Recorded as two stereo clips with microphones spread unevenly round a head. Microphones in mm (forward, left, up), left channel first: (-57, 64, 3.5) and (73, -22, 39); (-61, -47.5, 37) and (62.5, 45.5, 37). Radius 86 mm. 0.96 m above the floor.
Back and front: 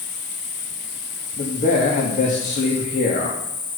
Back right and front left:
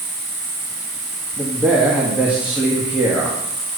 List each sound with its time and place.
0.0 s an insect: 130° left, 1.9 m
1.4 s a man speaking: 120° left, 1.9 m